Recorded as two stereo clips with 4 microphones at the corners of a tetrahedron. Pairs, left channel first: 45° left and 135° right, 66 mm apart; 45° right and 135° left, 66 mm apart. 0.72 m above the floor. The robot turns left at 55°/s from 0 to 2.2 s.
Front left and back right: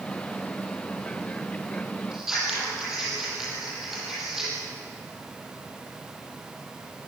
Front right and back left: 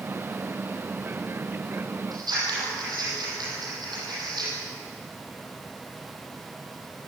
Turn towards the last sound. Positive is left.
turn(degrees=140)